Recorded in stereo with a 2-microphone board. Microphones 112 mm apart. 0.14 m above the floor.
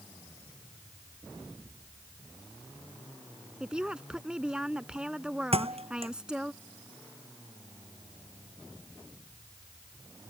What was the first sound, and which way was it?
A woman speaking, 10° right (ahead or behind).